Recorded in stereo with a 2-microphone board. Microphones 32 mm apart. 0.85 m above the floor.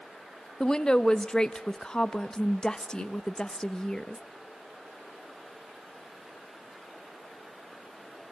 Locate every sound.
0.6 s a woman speaking: 25° left (ahead or behind), 0.8 m